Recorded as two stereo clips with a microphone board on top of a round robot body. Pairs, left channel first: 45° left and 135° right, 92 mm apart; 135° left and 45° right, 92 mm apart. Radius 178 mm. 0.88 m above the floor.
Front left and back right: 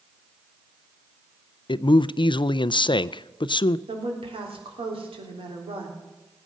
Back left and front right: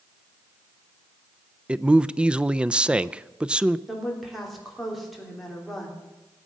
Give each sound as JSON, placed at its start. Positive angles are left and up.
{"t": 1.7, "sound": "a man speaking", "azimuth_deg": 30, "distance_m": 0.5}
{"t": 3.9, "sound": "a woman speaking", "azimuth_deg": -135, "distance_m": 3.5}